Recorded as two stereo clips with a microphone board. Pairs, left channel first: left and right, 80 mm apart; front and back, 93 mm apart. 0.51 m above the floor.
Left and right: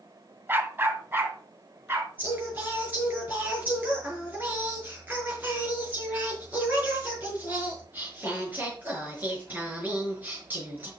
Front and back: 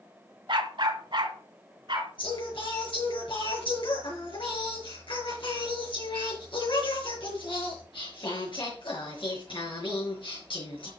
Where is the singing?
20° right, 5.5 m.